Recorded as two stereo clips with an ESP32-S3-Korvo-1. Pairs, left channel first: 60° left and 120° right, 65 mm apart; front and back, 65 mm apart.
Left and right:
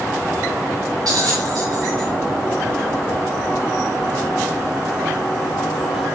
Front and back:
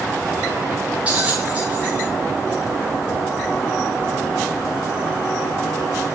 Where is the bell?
110° right, 4.5 m.